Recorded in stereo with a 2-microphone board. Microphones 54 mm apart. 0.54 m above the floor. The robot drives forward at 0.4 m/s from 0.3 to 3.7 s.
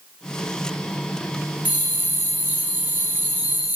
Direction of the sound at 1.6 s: 30° right (ahead or behind).